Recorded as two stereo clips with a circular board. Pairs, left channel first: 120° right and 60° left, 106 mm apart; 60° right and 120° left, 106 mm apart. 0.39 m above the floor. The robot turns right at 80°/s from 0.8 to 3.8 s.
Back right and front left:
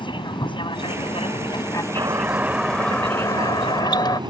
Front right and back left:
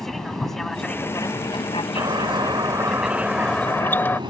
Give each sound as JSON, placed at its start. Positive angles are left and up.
{"t": 0.0, "sound": "an aircraft", "azimuth_deg": -145}
{"t": 2.0, "sound": "a doorbell", "azimuth_deg": 90}